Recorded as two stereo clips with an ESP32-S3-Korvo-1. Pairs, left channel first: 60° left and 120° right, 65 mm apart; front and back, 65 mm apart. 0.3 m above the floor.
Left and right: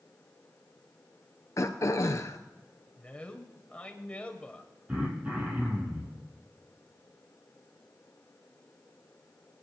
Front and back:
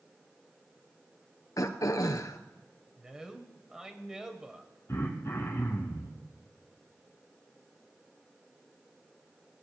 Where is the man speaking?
110° left, 1.3 m.